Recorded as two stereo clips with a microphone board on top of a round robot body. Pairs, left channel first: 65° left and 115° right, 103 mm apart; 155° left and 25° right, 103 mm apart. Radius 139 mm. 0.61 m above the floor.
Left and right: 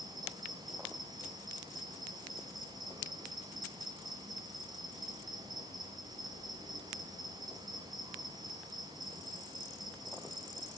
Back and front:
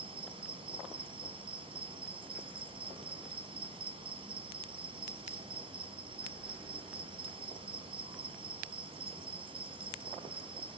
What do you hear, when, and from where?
0.0 s an insect: 60° right, 4.5 m